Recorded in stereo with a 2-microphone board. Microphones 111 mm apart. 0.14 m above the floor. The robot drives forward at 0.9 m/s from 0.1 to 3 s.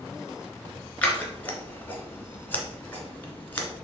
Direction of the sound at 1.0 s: 15° left (ahead or behind).